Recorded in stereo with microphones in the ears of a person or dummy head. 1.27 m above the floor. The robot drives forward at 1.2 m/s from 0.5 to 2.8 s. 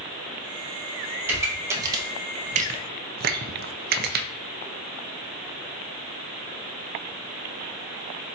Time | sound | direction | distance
1.2 | a pop | 15° right (ahead or behind) | 2 m